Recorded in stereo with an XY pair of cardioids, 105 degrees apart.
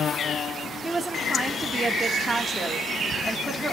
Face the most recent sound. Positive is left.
turn(degrees=-15)